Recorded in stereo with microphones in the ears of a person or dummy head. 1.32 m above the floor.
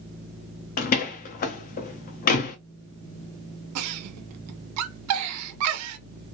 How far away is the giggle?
About 0.5 m.